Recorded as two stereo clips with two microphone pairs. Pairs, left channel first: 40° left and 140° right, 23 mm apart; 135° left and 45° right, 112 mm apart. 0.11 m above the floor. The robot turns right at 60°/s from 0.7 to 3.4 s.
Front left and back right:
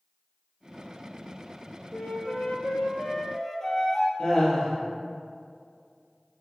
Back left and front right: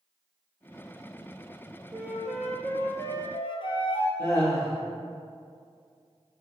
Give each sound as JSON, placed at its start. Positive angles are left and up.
{"t": 1.9, "sound": "a flute", "azimuth_deg": 15, "distance_m": 0.5}
{"t": 4.2, "sound": "laughter", "azimuth_deg": 75, "distance_m": 1.9}